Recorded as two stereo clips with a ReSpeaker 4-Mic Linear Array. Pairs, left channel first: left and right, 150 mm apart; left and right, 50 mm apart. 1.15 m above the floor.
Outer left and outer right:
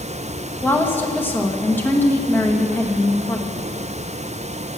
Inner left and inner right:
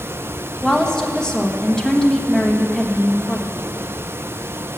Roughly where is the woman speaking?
Centre.